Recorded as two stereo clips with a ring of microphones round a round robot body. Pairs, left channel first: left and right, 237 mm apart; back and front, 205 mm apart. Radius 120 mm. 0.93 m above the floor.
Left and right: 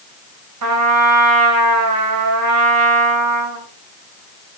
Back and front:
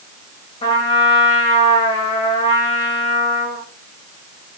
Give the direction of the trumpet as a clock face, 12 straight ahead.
4 o'clock.